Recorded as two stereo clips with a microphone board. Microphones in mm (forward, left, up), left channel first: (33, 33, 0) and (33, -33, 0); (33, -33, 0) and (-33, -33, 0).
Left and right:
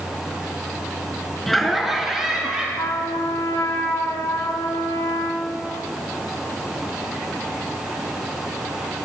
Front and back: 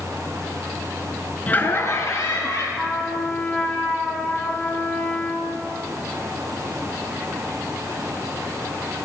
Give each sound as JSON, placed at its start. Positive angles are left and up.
{"t": 1.5, "sound": "laughter", "azimuth_deg": 5, "distance_m": 1.2}
{"t": 2.8, "sound": "a trumpet", "azimuth_deg": 75, "distance_m": 3.5}